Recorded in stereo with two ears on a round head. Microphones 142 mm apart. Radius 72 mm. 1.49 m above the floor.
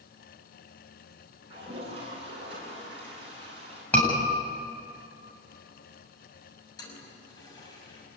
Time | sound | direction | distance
1.5 | a toilet flushing | 35° right (ahead or behind) | 8.5 m
3.9 | a scream | 10° left (ahead or behind) | 8.5 m
6.8 | a toilet flushing | 25° left (ahead or behind) | 6 m